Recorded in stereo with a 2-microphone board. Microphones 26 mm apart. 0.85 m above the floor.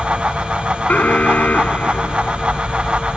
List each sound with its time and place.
0.9 s an alarm: 80° left